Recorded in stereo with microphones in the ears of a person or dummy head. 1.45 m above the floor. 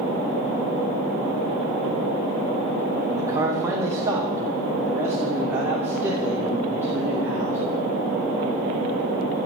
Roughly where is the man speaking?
Centre.